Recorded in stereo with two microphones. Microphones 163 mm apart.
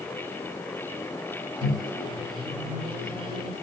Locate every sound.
1.6 s a microwave: 30° right (ahead or behind), 1.5 m